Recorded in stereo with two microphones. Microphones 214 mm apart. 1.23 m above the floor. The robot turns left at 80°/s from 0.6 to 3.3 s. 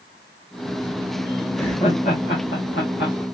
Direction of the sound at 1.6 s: 5° left (ahead or behind).